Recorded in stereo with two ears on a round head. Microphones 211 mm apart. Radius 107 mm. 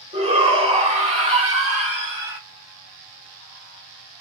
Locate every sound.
0.1 s a shout: 25° right (ahead or behind), 1.5 m